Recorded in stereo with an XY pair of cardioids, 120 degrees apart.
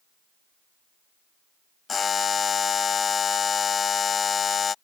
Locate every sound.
1.9 s a buzzer: 35° left